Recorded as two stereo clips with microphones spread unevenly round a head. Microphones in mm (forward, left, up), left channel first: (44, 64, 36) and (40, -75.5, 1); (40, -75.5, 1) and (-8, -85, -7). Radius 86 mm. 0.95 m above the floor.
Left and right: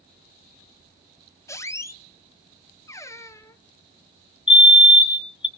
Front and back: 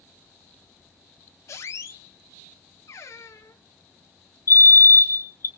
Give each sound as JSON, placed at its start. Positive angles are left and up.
{"t": 1.5, "sound": "a squeak", "azimuth_deg": 25, "distance_m": 0.8}
{"t": 4.5, "sound": "a fire alarm", "azimuth_deg": 30, "distance_m": 1.7}